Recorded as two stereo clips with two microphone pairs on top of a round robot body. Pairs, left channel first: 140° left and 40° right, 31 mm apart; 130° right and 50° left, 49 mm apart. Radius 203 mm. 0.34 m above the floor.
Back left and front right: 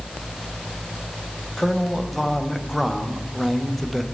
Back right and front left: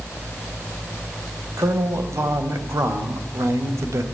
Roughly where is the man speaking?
Ahead left.